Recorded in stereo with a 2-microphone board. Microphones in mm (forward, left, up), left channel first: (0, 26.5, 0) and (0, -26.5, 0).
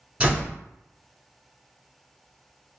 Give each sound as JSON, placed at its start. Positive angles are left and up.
{"t": 0.2, "sound": "a door slam", "side_deg": -25, "distance_m": 1.5}